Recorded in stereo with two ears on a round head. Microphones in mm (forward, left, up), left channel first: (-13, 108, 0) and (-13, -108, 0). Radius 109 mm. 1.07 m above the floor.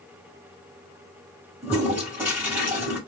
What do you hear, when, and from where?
1.6 s a toilet flushing: 10° right (ahead or behind), 1.3 m